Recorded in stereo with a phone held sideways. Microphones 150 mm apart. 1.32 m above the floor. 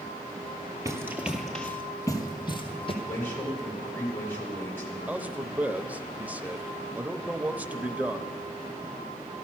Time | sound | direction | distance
0.8 | running footsteps | 20° right (ahead or behind) | 1.5 m
3.0 | a man speaking | 15° left (ahead or behind) | 4.5 m
5.1 | a man speaking | 10° right (ahead or behind) | 0.6 m